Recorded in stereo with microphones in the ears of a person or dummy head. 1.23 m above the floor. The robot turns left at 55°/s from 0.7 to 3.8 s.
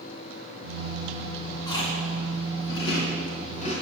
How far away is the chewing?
About 3 m.